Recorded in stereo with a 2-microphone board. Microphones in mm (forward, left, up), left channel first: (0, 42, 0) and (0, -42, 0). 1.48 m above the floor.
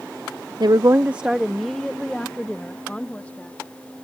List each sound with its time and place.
0.6 s a woman speaking: 60° right (ahead or behind); by 3.6 s 20° left (ahead or behind)